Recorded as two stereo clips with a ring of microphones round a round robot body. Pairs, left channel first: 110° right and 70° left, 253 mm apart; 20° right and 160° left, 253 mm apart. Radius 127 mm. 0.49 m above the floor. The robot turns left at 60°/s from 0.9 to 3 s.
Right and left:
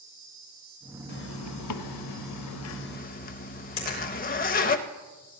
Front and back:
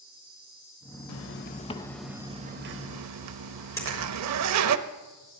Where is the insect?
70° left, 5.5 m; by 5.4 s 55° right, 5.5 m.